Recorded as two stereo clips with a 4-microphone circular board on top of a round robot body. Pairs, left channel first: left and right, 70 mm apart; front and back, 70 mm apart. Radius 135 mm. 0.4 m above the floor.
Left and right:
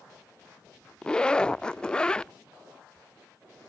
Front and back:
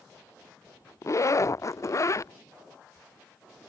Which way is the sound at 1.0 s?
15° left.